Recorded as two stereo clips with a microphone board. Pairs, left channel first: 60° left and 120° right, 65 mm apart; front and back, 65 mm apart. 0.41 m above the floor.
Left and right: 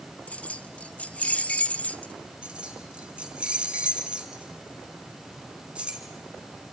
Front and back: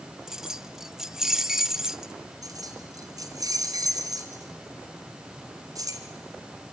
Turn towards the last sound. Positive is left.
turn(degrees=165)